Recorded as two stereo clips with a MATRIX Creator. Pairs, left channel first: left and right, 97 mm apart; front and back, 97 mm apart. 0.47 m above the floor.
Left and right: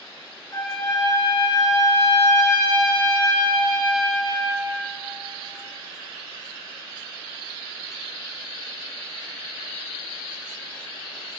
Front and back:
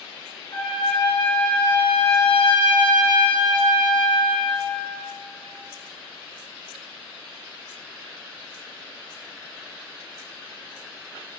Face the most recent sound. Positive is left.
turn(degrees=40)